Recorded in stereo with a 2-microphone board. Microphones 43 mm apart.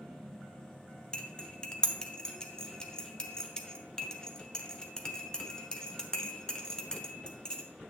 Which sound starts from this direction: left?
Cutlery clinking, at 1.1 s.